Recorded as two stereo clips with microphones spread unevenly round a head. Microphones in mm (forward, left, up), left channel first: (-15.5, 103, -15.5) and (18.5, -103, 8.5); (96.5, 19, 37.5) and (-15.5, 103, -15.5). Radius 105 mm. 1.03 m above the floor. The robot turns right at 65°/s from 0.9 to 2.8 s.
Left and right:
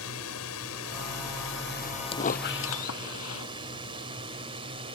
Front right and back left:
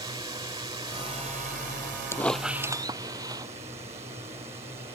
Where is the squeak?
35° left; by 3.5 s 80° left.